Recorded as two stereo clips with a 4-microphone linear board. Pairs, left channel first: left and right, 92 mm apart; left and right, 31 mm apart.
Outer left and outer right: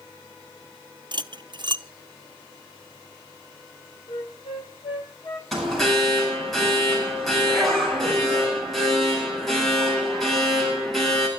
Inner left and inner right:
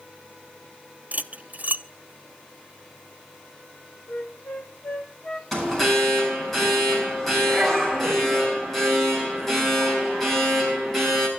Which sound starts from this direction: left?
A flute, at 4.1 s.